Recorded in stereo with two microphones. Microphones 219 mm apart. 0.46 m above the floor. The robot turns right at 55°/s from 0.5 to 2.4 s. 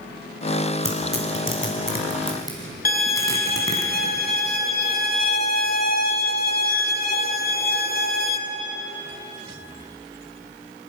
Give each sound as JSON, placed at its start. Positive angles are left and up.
{"t": 0.8, "sound": "tearing paper", "side_deg": 70, "distance_m": 4.5}
{"t": 2.9, "sound": "a violin", "side_deg": 40, "distance_m": 1.8}